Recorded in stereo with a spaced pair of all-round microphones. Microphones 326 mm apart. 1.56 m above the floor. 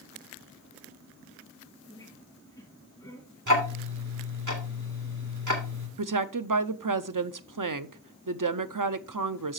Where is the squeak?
10° left (ahead or behind), 5.5 m.